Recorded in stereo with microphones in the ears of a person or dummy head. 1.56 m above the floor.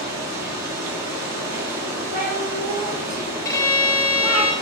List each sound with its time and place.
0.0 s running water: 15° right (ahead or behind), 1.4 m
2.1 s a cat meowing: 10° right (ahead or behind), 0.8 m
3.5 s a violin: 15° left (ahead or behind), 0.6 m